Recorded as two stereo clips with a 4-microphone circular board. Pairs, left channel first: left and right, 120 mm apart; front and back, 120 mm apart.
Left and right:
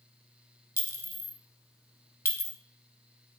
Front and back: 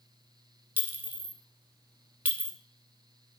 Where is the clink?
125° left, 1.0 m.